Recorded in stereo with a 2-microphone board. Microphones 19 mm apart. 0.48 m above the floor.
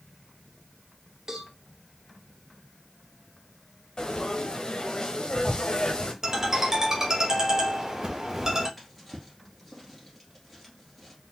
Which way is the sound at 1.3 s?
25° right (ahead or behind).